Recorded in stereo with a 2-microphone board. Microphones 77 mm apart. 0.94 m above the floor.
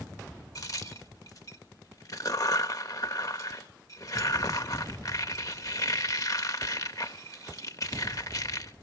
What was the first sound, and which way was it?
A crack, 45° left (ahead or behind).